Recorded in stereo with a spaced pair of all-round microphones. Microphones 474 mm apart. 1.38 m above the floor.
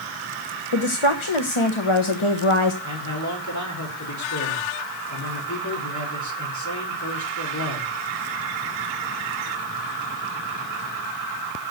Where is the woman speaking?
80° left, 1.2 m.